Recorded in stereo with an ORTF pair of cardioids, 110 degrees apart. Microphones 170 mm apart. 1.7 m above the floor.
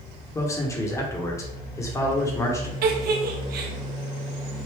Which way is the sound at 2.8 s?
70° right.